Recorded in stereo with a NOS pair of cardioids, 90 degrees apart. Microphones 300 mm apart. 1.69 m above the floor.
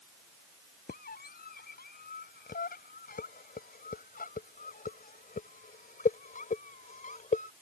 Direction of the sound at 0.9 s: 30° left.